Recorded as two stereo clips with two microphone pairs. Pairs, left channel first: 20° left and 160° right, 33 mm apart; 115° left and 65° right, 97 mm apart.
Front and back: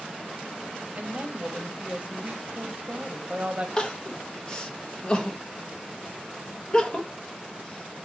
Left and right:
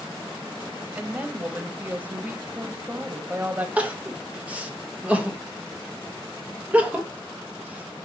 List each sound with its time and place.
0.9 s a woman speaking: 130° right, 0.8 m
3.8 s crying: 10° right, 0.7 m